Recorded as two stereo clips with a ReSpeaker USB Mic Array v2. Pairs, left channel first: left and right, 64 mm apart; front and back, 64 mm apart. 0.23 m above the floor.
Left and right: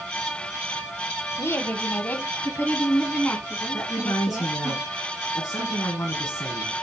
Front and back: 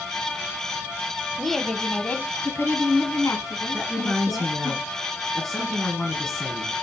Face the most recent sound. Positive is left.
turn(degrees=75)